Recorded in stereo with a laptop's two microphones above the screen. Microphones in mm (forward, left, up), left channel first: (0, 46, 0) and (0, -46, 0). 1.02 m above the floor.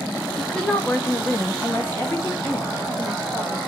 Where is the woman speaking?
10° left (ahead or behind), 0.7 m; by 3.6 s 15° left (ahead or behind), 1.5 m.